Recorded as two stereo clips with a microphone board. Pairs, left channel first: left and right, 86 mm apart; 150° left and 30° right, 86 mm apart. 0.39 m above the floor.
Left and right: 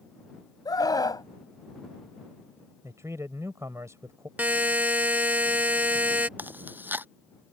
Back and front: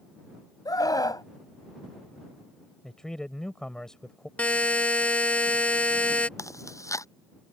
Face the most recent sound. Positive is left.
turn(degrees=-155)